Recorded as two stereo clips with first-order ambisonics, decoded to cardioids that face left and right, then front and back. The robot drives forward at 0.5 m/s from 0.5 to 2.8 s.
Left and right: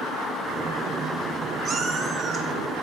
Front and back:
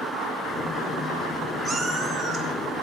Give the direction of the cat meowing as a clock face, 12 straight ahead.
4 o'clock.